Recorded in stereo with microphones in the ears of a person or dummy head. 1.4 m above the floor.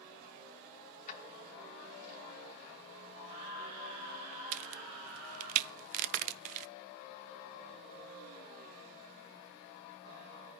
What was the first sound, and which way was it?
Keys jangling, 50° left (ahead or behind).